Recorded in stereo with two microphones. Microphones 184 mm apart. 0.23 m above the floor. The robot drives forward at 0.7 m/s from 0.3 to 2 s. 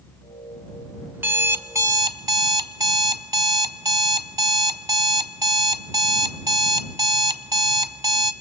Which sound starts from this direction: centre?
An alarm clock, at 1.1 s.